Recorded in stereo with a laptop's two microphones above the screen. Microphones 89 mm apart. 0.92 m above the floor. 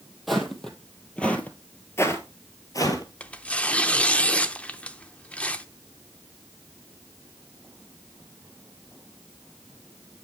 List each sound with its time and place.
0.3 s footsteps: centre (ahead or behind), 1.7 m; by 3.0 s 40° left (ahead or behind), 1.2 m
3.2 s tearing paper: 15° left (ahead or behind), 0.5 m